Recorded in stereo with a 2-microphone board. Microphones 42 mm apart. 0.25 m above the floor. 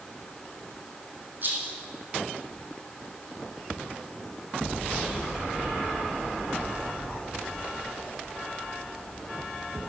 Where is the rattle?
45° right (ahead or behind), 3.5 m.